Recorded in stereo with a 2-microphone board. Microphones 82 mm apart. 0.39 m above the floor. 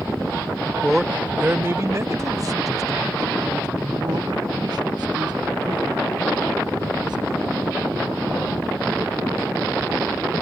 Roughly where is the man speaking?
Centre.